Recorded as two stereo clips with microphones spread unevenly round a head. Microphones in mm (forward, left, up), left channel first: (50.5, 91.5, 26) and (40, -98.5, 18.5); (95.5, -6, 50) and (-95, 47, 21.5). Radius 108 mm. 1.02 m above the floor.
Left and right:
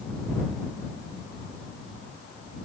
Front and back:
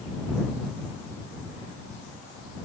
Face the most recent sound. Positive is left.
No sound to turn to.